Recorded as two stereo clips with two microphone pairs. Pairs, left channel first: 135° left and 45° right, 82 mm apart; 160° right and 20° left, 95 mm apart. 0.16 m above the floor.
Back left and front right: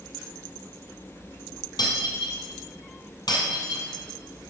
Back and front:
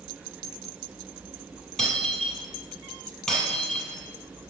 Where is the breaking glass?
115° left, 2.5 m.